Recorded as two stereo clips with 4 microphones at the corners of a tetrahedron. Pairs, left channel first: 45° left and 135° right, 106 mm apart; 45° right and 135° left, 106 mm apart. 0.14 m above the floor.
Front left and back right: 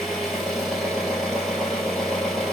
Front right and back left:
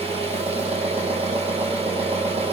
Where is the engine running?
135° left, 1.8 m.